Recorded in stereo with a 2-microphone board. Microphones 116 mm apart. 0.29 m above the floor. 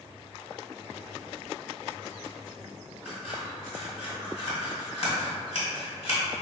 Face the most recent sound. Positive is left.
turn(degrees=60)  # may be behind; listen again after turning